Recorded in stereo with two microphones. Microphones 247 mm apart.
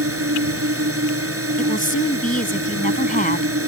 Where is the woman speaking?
35° left (ahead or behind).